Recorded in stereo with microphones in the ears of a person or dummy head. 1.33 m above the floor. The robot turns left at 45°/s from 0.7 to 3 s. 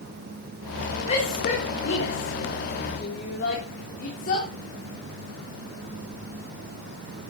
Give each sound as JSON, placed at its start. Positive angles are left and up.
{"t": 1.1, "sound": "a shout", "side_deg": 45, "distance_m": 3.5}